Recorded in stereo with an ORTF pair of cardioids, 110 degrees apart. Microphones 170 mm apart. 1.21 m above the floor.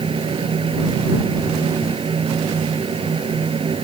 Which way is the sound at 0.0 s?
30° right.